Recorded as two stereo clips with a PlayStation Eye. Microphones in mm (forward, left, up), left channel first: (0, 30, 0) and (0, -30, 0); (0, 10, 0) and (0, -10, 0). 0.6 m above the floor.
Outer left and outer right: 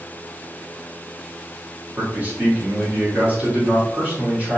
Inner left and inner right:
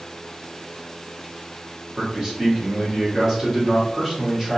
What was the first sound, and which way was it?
A man speaking, 25° right (ahead or behind).